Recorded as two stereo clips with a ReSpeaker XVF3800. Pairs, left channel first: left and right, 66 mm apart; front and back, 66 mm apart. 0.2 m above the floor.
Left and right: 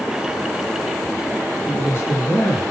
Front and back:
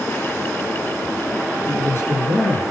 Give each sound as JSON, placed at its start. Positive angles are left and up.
{"t": 1.7, "sound": "a man speaking", "azimuth_deg": 50, "distance_m": 4.0}